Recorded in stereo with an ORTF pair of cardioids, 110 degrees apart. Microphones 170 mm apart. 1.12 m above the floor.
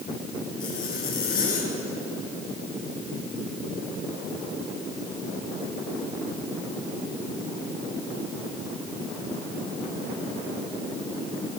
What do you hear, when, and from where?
0.6 s a zipper: 60° left, 4 m